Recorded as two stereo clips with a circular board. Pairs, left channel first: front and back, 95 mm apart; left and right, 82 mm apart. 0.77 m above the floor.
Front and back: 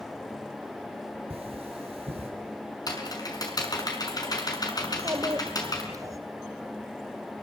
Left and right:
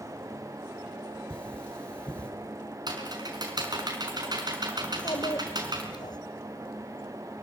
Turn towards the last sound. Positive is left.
turn(degrees=125)